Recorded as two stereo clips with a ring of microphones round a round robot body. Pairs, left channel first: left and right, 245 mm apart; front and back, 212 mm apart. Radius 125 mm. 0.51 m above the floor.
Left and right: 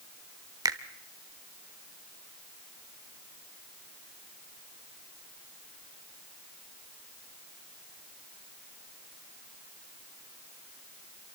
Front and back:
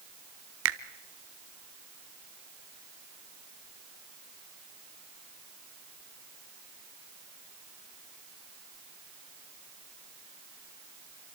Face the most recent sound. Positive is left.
turn(degrees=-165)